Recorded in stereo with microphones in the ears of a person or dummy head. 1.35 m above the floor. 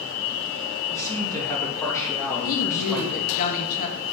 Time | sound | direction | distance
0.9 | a man speaking | 15° left (ahead or behind) | 2.5 m
2.5 | a woman speaking | 45° left (ahead or behind) | 1.2 m